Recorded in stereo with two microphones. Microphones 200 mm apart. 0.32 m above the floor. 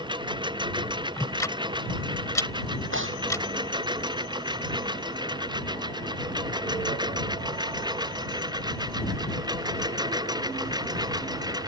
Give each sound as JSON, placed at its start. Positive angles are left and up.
{"t": 0.0, "sound": "a lawn mower", "side_deg": -20}
{"t": 1.2, "sound": "ticking", "side_deg": 15}
{"t": 2.9, "sound": "tearing paper", "side_deg": -80}